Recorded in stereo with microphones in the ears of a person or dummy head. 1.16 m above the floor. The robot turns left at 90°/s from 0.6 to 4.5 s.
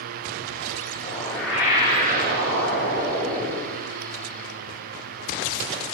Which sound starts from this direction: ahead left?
A whoosh, at 1.0 s.